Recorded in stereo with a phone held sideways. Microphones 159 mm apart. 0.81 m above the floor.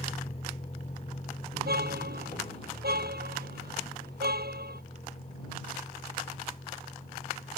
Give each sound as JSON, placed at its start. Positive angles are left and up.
{"t": 0.0, "sound": "a vehicle", "side_deg": 40}
{"t": 1.5, "sound": "a car horn", "side_deg": -80}